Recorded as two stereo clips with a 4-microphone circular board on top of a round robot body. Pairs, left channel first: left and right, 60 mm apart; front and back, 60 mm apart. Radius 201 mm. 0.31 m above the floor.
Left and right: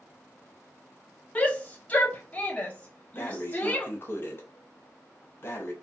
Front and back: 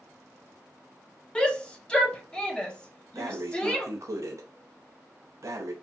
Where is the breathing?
145° left, 0.7 m.